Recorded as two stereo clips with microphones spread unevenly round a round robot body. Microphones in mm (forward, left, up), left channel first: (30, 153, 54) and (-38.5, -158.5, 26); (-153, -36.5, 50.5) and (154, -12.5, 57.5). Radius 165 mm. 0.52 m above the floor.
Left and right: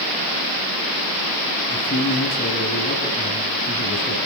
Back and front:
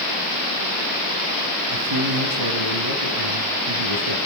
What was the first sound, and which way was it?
A man speaking, 15° left.